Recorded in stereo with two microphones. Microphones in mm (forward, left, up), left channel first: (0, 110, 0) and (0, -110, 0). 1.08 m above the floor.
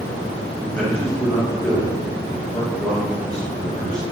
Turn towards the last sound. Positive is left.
turn(degrees=5)  # may be behind; listen again after turning